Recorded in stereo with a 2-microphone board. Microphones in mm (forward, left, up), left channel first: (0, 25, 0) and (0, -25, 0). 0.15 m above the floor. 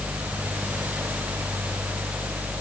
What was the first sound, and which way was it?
Only background noise.